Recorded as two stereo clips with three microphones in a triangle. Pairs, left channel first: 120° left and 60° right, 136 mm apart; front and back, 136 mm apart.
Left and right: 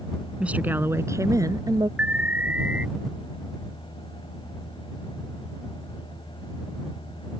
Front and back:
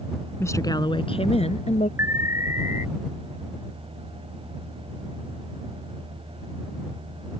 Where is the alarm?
130° right.